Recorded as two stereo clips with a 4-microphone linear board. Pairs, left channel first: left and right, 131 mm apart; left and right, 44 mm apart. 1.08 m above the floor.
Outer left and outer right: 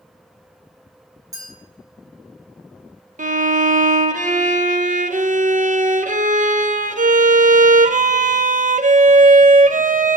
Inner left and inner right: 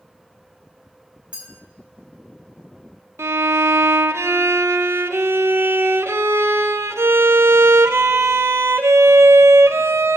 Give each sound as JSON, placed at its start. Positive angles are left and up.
{"t": 1.3, "sound": "a clink", "side_deg": -25, "distance_m": 4.5}
{"t": 3.2, "sound": "a violin", "side_deg": -80, "distance_m": 0.5}